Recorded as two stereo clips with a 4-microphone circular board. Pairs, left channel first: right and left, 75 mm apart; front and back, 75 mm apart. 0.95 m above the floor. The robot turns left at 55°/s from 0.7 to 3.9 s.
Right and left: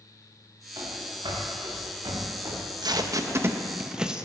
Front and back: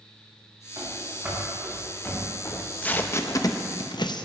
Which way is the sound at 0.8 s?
130° left.